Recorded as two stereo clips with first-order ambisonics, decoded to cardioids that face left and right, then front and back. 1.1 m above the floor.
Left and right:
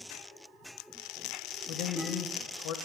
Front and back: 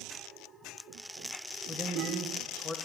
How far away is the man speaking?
About 0.7 m.